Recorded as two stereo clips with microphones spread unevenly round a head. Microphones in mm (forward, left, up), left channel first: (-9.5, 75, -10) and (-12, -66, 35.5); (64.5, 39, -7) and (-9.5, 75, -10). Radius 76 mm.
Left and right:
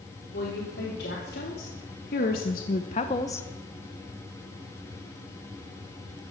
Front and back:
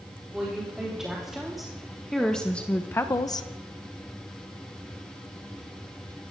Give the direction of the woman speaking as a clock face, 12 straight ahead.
10 o'clock.